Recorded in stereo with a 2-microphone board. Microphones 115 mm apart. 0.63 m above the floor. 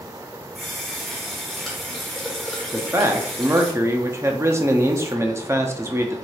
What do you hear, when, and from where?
0.6 s a running tap: 5° left (ahead or behind), 1.1 m
2.7 s a man speaking: 25° right (ahead or behind), 0.6 m